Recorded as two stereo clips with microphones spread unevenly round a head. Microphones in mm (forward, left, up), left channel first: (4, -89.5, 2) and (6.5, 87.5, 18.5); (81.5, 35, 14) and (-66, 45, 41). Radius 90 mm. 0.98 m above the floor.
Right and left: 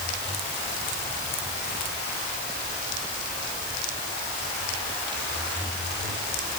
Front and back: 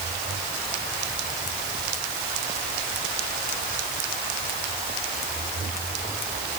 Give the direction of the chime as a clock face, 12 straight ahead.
I don't hear a chime.